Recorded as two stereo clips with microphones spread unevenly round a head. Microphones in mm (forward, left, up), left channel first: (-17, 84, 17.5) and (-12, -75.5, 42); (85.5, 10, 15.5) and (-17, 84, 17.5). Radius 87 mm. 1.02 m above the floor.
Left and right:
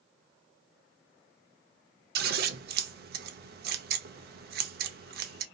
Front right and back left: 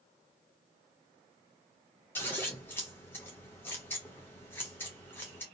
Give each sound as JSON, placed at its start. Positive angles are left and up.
{"t": 2.1, "sound": "scissors", "azimuth_deg": -115, "distance_m": 0.5}